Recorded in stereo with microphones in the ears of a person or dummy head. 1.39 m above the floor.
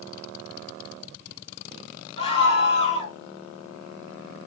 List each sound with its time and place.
2.2 s a scream: 35° left (ahead or behind), 3 m